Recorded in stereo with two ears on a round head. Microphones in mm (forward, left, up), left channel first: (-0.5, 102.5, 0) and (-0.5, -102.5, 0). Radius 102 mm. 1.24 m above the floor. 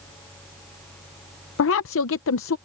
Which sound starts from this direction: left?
A woman speaking, at 1.6 s.